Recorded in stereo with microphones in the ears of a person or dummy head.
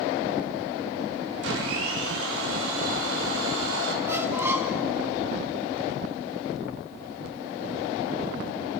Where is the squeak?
15° right (ahead or behind), 1.9 m.